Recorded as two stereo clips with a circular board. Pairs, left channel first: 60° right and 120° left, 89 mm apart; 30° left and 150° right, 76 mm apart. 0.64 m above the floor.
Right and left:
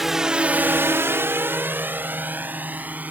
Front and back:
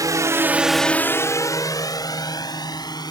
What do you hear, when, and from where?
0.0 s a drone: 155° right; by 3.1 s 50° left